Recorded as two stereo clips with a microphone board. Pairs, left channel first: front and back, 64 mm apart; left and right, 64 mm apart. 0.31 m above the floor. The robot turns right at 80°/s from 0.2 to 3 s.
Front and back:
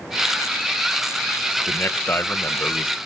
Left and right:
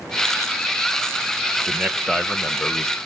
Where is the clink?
No clink in this recording.